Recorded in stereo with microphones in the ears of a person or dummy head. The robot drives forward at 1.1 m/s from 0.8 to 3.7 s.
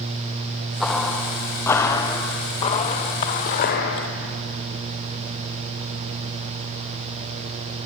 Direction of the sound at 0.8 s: Centre (ahead or behind).